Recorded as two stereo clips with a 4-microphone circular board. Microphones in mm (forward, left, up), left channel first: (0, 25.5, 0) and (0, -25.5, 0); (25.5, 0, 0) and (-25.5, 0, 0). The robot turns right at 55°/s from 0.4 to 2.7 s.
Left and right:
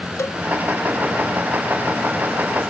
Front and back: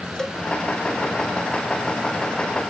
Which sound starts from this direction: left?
A cowbell, at 0.2 s.